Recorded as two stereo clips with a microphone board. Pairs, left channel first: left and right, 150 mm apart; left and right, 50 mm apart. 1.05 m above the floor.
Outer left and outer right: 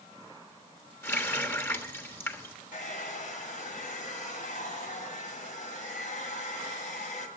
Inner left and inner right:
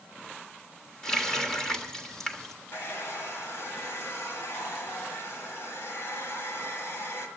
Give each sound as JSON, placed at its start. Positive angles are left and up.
{"t": 1.0, "sound": "a running tap", "side_deg": 15, "distance_m": 1.3}
{"t": 2.7, "sound": "a hair dryer", "side_deg": 60, "distance_m": 1.8}